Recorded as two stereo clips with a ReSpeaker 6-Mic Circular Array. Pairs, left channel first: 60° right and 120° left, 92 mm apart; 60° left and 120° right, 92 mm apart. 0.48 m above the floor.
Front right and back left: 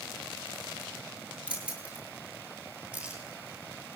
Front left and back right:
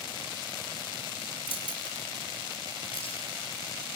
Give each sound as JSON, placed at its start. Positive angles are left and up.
{"t": 1.5, "sound": "keys jangling", "azimuth_deg": 45, "distance_m": 6.5}